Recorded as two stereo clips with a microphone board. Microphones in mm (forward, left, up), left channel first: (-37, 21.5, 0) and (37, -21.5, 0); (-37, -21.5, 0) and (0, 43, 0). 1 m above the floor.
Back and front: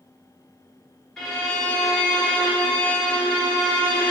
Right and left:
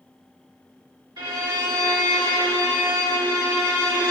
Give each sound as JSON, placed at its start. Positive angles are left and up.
{"t": 1.2, "sound": "a violin", "azimuth_deg": 65, "distance_m": 1.0}